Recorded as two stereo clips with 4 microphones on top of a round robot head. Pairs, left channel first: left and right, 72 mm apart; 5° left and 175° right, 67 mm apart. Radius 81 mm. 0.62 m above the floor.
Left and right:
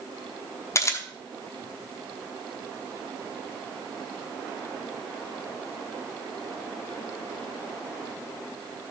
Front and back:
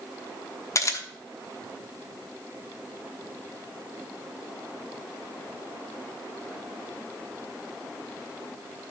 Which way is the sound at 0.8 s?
45° left.